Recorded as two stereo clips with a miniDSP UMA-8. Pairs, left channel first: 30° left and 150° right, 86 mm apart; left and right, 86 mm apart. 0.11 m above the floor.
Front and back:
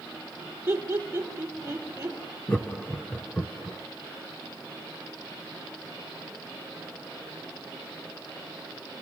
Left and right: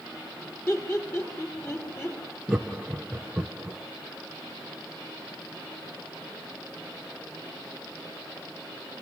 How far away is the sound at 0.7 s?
About 4.5 m.